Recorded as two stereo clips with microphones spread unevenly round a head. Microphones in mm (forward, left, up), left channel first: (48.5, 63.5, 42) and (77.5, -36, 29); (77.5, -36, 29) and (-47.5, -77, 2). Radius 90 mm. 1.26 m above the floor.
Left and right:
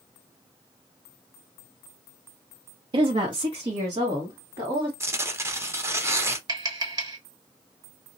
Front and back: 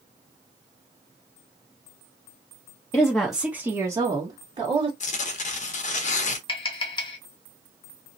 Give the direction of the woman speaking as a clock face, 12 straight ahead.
2 o'clock.